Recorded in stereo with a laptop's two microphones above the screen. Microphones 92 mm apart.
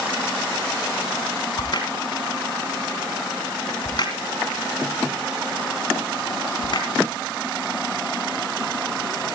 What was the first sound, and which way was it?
A crack, 55° left (ahead or behind).